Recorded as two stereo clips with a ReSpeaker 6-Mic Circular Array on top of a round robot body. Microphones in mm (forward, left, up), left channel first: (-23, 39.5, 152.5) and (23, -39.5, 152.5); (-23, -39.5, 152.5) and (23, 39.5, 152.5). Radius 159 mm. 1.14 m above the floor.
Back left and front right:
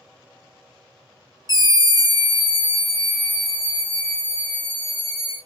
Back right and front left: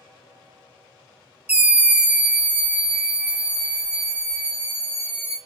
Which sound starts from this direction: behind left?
A scream, at 1.5 s.